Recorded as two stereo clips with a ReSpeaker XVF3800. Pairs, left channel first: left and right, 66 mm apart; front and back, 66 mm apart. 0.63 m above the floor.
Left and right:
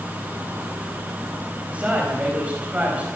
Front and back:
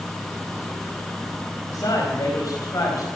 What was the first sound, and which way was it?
A man speaking, 20° right.